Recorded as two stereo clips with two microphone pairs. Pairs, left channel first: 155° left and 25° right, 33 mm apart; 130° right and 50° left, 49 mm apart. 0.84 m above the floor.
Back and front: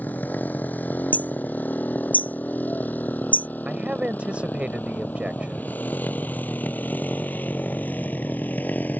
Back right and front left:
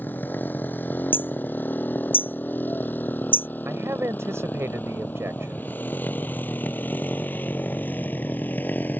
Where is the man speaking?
25° left.